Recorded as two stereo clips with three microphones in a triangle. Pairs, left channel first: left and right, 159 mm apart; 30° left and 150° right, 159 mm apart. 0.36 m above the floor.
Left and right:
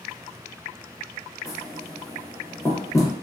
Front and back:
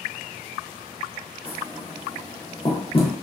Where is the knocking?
35° left, 0.6 m.